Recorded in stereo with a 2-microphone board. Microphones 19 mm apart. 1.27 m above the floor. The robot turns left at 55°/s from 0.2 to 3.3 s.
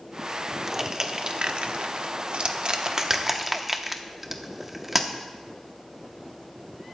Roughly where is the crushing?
Centre.